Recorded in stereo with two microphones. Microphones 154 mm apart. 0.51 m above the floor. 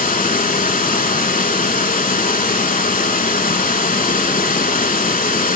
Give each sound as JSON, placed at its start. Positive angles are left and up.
{"t": 0.0, "sound": "running water", "side_deg": 60, "distance_m": 0.7}